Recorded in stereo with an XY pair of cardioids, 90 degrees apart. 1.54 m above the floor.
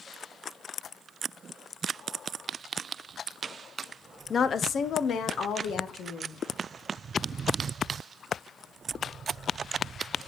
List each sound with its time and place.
4.3 s a woman speaking: 45° left, 0.5 m; by 6.4 s 80° left, 1.9 m